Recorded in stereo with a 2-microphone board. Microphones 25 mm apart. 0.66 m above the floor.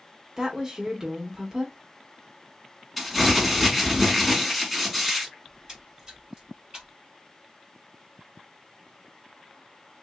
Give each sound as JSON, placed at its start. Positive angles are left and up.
{"t": 0.4, "sound": "a woman speaking", "side_deg": -25, "distance_m": 0.9}
{"t": 3.0, "sound": "crumpling", "side_deg": -10, "distance_m": 1.5}
{"t": 5.5, "sound": "a splash", "side_deg": -35, "distance_m": 1.7}